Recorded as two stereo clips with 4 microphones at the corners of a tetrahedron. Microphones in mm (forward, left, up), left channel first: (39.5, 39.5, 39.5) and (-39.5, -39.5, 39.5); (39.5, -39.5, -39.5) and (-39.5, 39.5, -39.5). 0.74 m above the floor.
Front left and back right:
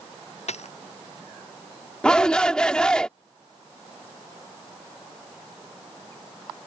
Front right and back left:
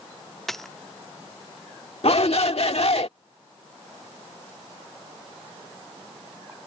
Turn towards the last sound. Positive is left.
turn(degrees=-35)